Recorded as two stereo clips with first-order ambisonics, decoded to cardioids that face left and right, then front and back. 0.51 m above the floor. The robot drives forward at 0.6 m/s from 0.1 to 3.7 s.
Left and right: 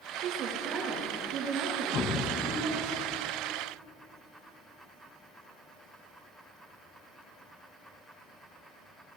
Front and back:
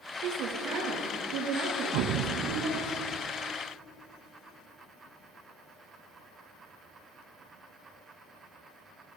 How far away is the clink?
I don't hear a clink.